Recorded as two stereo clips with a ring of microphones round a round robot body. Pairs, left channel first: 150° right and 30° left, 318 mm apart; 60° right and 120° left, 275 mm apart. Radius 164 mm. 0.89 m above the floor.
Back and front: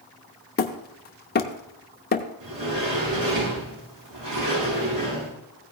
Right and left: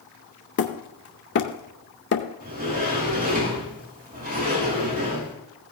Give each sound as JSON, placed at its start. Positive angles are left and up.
{"t": 0.6, "sound": "hammering", "azimuth_deg": -100, "distance_m": 0.6}
{"t": 2.4, "sound": "a sliding door", "azimuth_deg": 60, "distance_m": 4.5}